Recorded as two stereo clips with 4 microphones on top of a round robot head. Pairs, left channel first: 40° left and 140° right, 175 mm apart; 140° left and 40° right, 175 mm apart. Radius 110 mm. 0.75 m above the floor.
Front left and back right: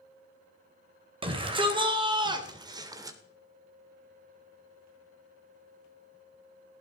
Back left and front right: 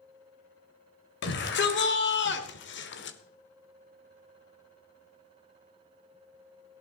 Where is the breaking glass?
I don't hear breaking glass.